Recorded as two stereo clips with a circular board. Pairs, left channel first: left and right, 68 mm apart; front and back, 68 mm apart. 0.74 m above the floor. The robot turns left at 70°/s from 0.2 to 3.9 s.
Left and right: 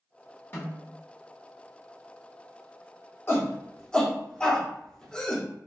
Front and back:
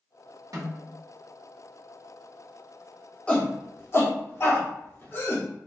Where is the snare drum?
150° left, 1.6 m; by 0.8 s 130° left, 1.6 m.